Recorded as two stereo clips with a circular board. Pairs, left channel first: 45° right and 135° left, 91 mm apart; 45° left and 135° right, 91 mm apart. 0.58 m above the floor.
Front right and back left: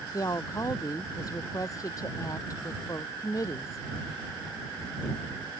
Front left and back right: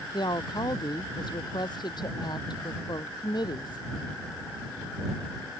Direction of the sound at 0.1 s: 5° left.